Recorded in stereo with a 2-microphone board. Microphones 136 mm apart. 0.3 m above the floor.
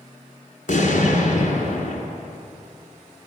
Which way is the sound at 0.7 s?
70° left (ahead or behind).